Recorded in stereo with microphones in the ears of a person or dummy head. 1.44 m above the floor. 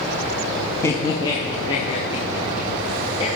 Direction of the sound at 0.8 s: 10° left (ahead or behind).